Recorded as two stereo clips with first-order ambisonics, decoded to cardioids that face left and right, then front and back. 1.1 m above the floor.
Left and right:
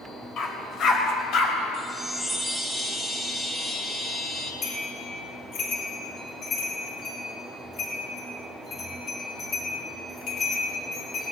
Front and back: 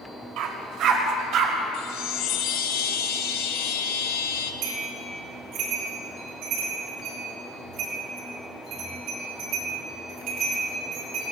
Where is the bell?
135° left, 6.5 m.